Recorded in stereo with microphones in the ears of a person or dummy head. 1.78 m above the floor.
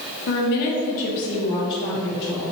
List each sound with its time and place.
0.3 s a woman speaking: 65° left (ahead or behind), 1.8 m; by 2.4 s 25° left (ahead or behind), 4.5 m